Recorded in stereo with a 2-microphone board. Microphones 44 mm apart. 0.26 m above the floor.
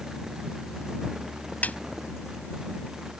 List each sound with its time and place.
1.6 s a snare drum: 40° left (ahead or behind)